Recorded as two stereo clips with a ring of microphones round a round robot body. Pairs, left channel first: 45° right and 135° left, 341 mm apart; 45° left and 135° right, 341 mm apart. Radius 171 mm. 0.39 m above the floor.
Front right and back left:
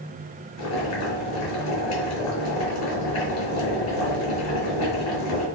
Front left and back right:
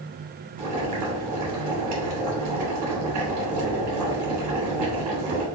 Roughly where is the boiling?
Right.